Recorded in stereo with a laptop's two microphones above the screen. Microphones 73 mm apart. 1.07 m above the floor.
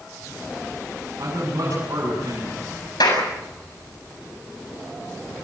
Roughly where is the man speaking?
Right.